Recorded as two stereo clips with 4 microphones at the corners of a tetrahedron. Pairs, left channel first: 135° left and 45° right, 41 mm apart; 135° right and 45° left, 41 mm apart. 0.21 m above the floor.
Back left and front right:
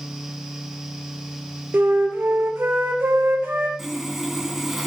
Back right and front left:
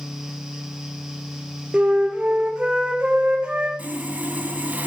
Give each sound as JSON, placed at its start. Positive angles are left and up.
{"t": 1.7, "sound": "a flute", "azimuth_deg": -20, "distance_m": 1.8}
{"t": 3.8, "sound": "sawing", "azimuth_deg": 35, "distance_m": 2.0}